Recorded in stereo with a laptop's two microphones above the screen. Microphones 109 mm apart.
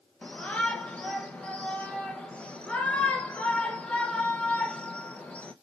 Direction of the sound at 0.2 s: 10° left (ahead or behind).